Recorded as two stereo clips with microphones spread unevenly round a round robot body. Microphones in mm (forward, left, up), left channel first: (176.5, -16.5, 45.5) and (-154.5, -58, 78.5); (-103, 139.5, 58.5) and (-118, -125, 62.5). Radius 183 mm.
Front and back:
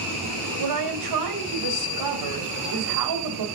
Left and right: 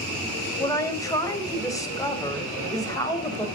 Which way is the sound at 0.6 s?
165° left.